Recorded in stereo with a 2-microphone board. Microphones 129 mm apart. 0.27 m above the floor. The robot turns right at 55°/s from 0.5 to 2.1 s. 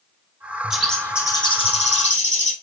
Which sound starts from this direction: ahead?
A bird, at 0.7 s.